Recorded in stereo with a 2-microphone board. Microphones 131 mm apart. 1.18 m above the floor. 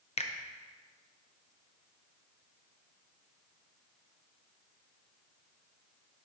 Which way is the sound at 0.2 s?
55° left (ahead or behind).